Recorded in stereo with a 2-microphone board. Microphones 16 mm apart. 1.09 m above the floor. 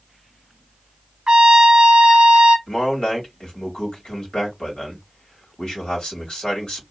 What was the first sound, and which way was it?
A trumpet, 50° right (ahead or behind).